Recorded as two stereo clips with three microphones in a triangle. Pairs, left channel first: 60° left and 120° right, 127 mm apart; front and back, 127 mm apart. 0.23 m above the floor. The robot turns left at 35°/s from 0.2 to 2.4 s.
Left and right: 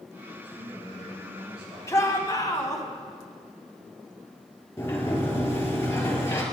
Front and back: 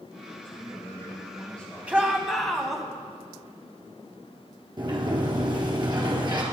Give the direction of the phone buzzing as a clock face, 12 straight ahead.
I don't hear a phone buzzing.